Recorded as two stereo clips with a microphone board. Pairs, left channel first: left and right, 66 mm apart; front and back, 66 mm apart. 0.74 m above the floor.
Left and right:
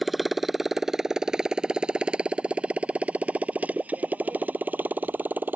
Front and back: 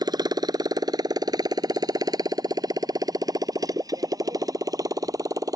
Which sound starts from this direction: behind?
A motorcycle, at 0.0 s.